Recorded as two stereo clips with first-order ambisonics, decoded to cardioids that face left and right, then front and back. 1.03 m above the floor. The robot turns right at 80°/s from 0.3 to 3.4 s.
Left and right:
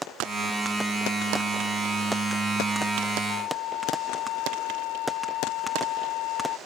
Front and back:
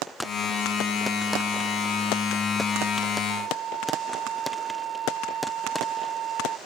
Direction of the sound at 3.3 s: 115° left.